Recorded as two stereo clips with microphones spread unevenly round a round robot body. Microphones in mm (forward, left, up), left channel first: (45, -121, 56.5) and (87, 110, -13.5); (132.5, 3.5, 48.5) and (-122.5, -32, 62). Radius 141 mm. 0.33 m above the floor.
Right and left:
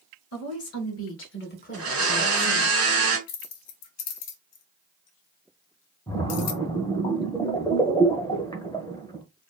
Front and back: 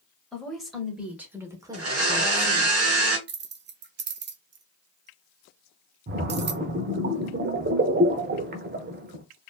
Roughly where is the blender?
Behind.